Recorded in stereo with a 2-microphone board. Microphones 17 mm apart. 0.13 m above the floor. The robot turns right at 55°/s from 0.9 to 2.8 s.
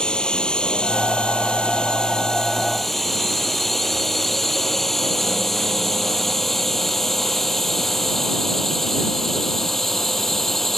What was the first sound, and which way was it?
A drone, 60° left (ahead or behind).